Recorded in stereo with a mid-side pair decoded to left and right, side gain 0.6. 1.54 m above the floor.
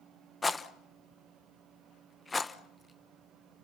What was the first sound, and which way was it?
A rattle, 15° left.